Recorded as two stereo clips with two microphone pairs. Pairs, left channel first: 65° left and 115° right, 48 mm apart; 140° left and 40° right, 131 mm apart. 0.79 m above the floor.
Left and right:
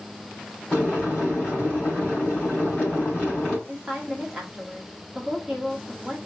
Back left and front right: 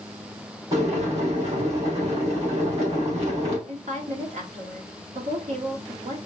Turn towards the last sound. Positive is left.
turn(degrees=-35)